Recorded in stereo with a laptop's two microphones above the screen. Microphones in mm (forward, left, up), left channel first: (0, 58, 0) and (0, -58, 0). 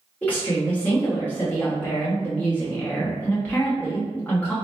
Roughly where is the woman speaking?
Centre.